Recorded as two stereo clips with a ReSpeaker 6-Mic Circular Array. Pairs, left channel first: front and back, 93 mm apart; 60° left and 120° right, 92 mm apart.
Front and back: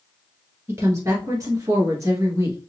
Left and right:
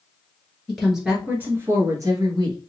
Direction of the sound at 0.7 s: 145° left.